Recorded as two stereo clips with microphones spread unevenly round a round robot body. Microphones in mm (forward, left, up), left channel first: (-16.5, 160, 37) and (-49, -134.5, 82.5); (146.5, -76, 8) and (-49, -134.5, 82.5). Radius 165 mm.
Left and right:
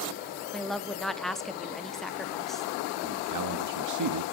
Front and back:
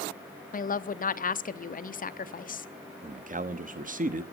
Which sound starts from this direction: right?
A man speaking, at 3.0 s.